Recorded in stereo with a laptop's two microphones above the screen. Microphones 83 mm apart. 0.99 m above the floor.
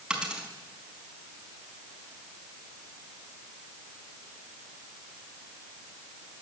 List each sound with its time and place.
0.1 s a dropped coin: 10° right (ahead or behind), 4.5 m